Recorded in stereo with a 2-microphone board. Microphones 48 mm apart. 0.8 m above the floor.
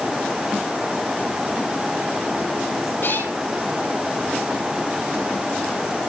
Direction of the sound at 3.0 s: 55° left (ahead or behind).